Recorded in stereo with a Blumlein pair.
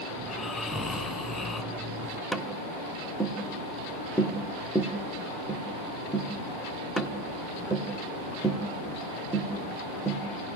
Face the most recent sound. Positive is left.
turn(degrees=0)